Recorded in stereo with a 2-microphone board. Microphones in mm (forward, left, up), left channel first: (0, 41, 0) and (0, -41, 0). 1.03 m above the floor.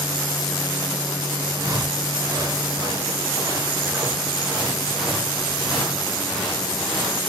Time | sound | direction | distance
1.5 | footsteps | 45° right (ahead or behind) | 4.5 m